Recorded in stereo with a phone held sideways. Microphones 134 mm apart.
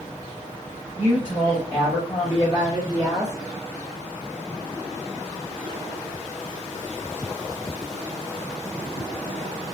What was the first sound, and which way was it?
A woman speaking, 60° left (ahead or behind).